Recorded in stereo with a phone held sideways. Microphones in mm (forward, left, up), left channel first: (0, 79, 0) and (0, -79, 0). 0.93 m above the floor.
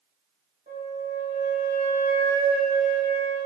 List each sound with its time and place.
0.7 s a flute: 55° right (ahead or behind), 1.5 m